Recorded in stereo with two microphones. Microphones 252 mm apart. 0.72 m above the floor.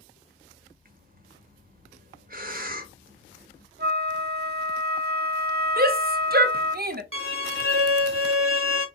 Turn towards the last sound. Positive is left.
turn(degrees=-55)  # may be behind; listen again after turning